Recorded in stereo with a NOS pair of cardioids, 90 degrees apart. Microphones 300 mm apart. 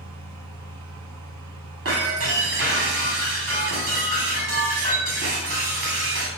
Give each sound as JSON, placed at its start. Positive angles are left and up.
{"t": 0.0, "sound": "a fan", "azimuth_deg": -65, "distance_m": 1.6}
{"t": 1.9, "sound": "breaking glass", "azimuth_deg": -50, "distance_m": 3.0}